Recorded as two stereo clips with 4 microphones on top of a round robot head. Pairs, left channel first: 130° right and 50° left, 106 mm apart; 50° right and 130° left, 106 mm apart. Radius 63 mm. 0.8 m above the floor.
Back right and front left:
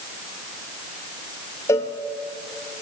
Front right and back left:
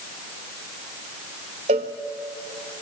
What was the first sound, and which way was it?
A cowbell, 165° left.